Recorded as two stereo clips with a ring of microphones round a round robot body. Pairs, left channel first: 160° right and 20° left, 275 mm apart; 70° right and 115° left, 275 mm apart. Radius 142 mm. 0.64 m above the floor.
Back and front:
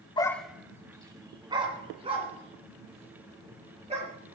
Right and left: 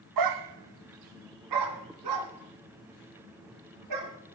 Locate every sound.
0.2 s a dog barking: 130° left, 0.5 m; by 4.1 s 90° left, 4.5 m